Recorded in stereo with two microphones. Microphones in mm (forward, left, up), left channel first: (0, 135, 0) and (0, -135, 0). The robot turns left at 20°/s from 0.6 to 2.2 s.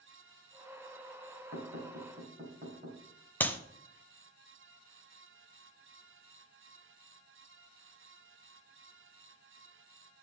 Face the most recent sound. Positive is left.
turn(degrees=5)  # may be behind; listen again after turning